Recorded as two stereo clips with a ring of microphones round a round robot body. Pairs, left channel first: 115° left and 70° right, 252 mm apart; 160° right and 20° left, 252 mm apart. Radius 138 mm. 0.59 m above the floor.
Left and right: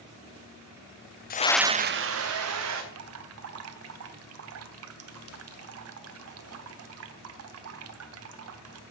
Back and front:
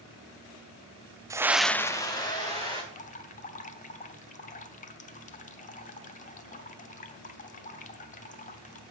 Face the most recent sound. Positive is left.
turn(degrees=-95)